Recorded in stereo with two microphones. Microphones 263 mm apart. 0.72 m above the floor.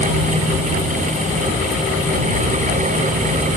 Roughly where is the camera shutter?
No camera shutter in this recording.